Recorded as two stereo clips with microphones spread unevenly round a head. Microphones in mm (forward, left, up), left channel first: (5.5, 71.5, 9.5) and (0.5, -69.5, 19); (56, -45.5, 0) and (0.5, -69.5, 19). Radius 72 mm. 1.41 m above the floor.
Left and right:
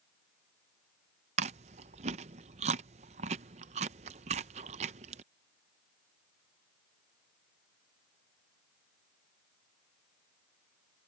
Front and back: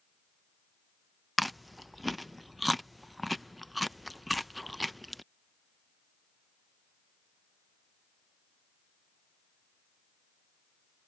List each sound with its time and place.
1.4 s chewing: 85° right